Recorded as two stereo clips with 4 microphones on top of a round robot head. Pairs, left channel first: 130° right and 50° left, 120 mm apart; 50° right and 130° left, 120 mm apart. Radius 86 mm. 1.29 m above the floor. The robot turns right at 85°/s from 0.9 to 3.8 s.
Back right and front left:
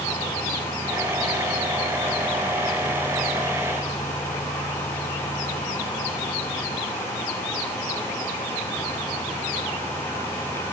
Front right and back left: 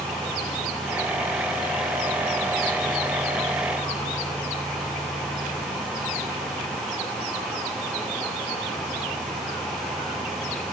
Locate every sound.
Only background noise.